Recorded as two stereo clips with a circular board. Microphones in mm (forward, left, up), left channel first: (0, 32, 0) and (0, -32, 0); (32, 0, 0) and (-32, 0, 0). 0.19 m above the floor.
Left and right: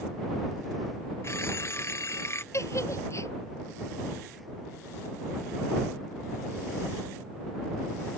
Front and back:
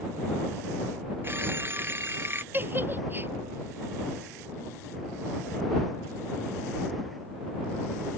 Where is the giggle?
125° left.